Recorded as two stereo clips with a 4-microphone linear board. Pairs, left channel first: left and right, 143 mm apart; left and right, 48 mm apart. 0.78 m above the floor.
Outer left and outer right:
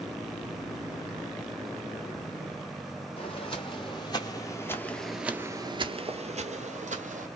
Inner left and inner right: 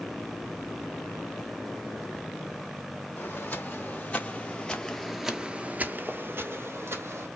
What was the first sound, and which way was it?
Footsteps, 45° left (ahead or behind).